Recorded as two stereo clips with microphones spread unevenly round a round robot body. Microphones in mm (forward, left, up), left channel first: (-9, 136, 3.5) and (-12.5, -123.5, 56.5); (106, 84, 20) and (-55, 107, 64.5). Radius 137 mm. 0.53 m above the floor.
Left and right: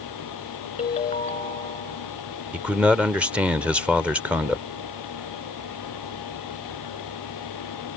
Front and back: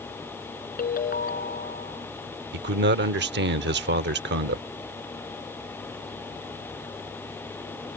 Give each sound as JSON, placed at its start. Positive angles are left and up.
{"t": 0.8, "sound": "a ringtone", "azimuth_deg": 20}
{"t": 2.5, "sound": "a man speaking", "azimuth_deg": 180}